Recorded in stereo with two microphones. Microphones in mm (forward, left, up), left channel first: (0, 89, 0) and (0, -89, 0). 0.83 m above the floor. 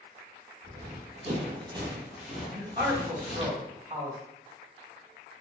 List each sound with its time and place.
0.6 s running footsteps: 50° right (ahead or behind), 1.3 m; by 3.5 s 35° left (ahead or behind), 1.0 m
2.5 s a man speaking: 50° right (ahead or behind), 1.5 m